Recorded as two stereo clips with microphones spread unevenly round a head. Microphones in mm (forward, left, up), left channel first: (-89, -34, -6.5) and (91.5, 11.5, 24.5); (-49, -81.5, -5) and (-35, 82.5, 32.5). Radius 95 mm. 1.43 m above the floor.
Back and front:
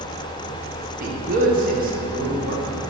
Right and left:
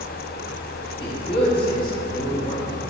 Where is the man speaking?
35° right, 1.1 m.